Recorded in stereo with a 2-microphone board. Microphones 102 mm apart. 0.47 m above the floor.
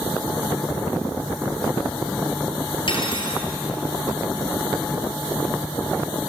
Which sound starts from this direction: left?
Cutlery clinking, at 2.9 s.